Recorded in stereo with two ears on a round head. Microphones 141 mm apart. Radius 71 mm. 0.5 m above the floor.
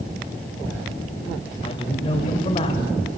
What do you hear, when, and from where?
1.6 s a man speaking: 35° left (ahead or behind), 2.5 m